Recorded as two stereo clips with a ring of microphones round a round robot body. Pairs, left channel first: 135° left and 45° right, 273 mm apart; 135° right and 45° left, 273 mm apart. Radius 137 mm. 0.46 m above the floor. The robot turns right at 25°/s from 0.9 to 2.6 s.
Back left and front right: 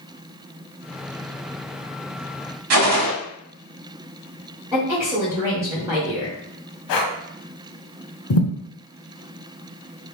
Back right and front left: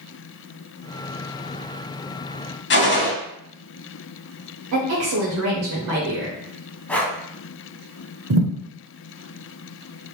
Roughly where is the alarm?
No alarm in this recording.